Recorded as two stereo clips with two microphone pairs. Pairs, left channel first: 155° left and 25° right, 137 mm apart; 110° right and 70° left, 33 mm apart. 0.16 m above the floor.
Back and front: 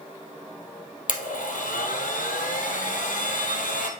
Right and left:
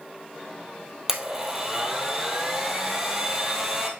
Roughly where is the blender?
Behind left.